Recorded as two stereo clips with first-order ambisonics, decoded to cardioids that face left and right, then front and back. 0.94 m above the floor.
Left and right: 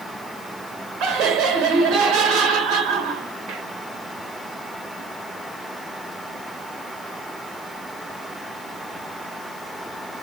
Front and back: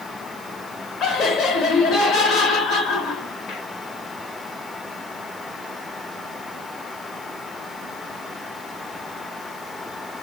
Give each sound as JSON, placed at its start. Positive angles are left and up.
{"t": 1.0, "sound": "laughter", "azimuth_deg": -50, "distance_m": 1.1}